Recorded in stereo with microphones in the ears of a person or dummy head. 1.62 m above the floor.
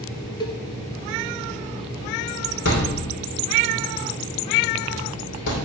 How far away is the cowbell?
About 0.8 m.